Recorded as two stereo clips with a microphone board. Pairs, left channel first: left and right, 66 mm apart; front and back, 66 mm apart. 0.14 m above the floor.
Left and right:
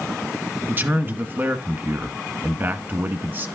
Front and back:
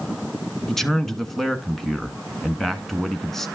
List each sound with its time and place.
0.7 s a man speaking: 80° right, 1.3 m